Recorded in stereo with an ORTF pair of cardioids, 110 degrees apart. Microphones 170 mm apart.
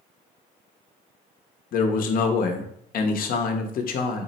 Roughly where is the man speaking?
Ahead left.